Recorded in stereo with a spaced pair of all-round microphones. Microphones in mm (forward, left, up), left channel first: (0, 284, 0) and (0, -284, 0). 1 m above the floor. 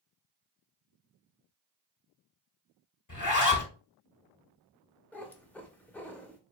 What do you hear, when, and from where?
3.1 s a zipper: 30° left (ahead or behind), 1.0 m
5.1 s a cat meowing: 5° left (ahead or behind), 0.7 m